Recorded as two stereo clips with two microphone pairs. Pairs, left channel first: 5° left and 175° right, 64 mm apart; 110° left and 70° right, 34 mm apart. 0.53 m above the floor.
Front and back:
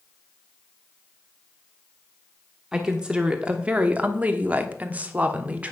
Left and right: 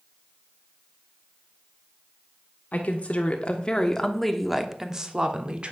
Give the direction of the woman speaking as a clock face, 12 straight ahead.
8 o'clock.